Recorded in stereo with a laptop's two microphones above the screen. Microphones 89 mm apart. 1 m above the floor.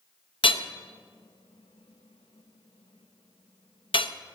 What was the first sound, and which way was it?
Hammering, 75° left (ahead or behind).